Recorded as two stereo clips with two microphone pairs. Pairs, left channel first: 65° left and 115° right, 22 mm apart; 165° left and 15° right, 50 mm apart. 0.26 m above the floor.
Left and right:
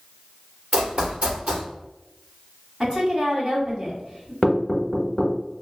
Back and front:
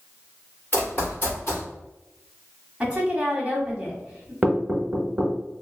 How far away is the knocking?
About 0.8 m.